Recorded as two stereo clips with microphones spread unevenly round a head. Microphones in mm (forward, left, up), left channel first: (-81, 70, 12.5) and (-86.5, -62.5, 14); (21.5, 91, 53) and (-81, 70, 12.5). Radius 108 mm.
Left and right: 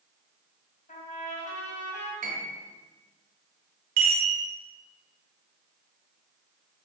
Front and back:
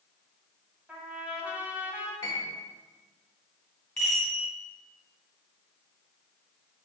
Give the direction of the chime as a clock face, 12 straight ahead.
2 o'clock.